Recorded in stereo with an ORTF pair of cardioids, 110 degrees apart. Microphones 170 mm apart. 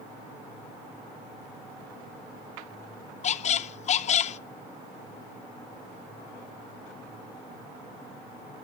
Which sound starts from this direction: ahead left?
A squeak, at 3.2 s.